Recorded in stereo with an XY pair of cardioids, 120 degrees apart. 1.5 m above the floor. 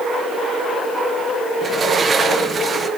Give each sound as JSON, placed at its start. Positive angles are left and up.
{"t": 1.6, "sound": "a sliding door", "azimuth_deg": -35, "distance_m": 1.2}